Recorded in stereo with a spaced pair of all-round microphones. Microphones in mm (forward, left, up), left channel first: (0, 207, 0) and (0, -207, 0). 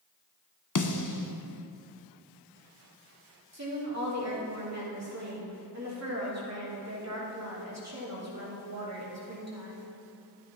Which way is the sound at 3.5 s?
40° right (ahead or behind).